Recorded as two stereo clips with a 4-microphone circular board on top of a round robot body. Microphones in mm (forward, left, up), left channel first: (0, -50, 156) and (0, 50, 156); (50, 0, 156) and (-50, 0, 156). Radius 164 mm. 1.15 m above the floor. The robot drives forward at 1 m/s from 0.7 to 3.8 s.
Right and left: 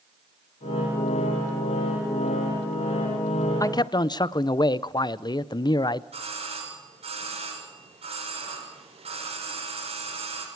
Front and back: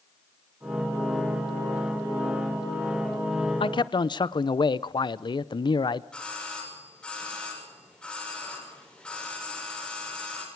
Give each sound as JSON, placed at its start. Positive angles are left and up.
{"t": 3.6, "sound": "a man speaking", "azimuth_deg": -35, "distance_m": 0.8}
{"t": 6.1, "sound": "a doorbell", "azimuth_deg": 80, "distance_m": 7.0}